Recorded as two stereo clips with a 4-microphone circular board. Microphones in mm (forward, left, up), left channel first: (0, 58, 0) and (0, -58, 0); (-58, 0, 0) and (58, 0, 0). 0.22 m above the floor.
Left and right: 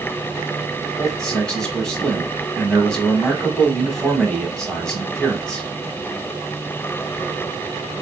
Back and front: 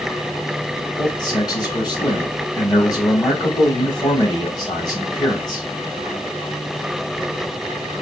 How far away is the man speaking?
About 1.2 m.